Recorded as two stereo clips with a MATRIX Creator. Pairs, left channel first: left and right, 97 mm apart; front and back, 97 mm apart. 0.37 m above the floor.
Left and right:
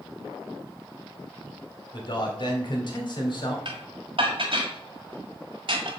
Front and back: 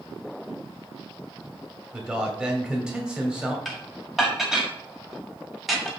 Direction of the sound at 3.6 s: 90° right.